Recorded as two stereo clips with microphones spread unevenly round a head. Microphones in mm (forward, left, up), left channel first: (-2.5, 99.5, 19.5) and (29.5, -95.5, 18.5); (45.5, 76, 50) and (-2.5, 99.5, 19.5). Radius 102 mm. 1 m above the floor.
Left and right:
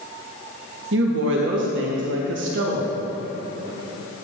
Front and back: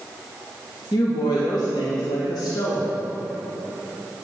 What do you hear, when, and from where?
0.9 s a woman speaking: 60° right, 1.3 m